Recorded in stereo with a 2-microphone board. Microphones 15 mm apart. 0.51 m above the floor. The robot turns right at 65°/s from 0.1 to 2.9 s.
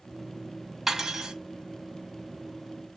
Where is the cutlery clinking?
150° right, 0.8 m; by 1.3 s 120° right, 0.8 m.